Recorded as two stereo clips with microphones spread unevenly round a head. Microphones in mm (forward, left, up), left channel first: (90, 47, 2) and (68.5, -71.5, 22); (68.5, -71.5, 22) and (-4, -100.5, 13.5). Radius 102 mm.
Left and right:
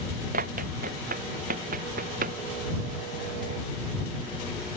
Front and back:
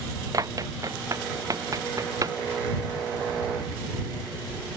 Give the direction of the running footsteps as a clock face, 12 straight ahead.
4 o'clock.